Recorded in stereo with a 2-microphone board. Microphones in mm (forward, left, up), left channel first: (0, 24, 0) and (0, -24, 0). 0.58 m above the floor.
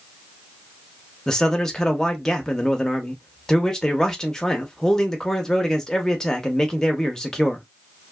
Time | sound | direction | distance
1.3 | a man speaking | 10° left (ahead or behind) | 0.7 m